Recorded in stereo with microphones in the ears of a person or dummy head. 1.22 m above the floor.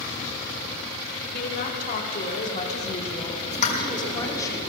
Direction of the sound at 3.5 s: 40° left (ahead or behind).